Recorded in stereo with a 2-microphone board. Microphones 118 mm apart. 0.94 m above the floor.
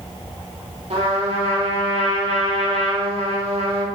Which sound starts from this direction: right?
A trumpet, at 0.9 s.